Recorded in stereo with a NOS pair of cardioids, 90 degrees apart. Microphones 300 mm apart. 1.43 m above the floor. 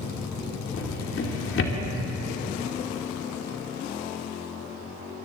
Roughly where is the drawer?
Ahead left.